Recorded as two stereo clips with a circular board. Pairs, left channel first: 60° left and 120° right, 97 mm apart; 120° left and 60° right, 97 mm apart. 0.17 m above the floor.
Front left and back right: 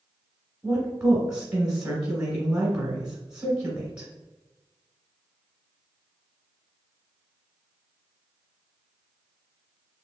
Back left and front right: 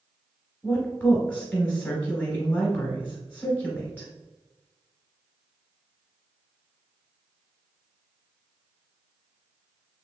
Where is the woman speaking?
170° left, 1.3 m.